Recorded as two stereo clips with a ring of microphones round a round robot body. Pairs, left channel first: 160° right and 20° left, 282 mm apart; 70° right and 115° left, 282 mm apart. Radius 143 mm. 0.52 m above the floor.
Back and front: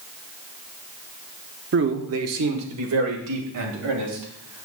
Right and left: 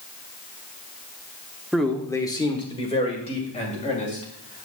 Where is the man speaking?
25° left, 0.8 m; by 4.7 s straight ahead, 3 m.